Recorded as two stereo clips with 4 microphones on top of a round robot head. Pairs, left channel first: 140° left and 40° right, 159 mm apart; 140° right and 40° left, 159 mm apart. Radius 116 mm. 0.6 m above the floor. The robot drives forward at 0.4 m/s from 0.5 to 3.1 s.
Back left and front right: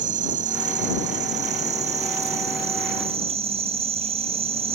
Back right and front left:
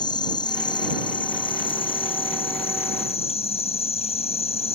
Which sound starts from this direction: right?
An insect, at 0.0 s.